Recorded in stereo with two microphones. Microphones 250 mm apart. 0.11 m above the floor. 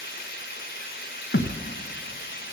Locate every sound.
0.0 s running water: 45° left (ahead or behind), 1.5 m
1.3 s a thud: 50° left (ahead or behind), 1.0 m